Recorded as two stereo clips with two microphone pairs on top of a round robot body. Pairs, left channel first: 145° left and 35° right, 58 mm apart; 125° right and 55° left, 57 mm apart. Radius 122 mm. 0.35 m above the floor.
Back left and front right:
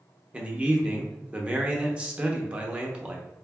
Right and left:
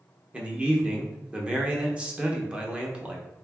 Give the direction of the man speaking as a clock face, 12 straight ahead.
12 o'clock.